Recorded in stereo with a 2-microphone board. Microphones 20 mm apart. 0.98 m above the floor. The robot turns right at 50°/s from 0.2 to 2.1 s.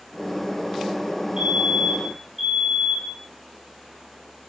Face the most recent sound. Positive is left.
turn(degrees=-5)